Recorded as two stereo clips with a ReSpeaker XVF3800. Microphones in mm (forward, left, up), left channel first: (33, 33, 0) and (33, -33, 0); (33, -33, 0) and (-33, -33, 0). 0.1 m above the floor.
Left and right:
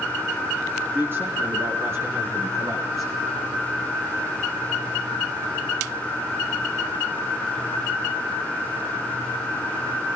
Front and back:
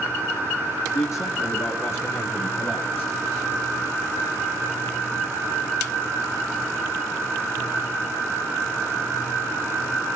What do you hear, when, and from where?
0.9 s a man speaking: 35° right, 7 m; by 3.1 s 55° right, 8 m